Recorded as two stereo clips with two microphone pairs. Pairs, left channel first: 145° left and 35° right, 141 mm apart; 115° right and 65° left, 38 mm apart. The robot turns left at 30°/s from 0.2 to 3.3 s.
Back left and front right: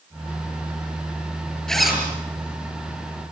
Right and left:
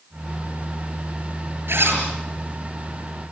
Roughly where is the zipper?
Ahead left.